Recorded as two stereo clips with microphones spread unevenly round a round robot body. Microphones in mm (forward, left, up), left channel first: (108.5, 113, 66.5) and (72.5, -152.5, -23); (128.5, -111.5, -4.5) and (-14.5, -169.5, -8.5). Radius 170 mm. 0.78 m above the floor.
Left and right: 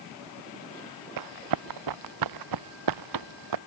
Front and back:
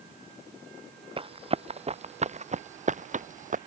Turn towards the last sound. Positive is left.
turn(degrees=-125)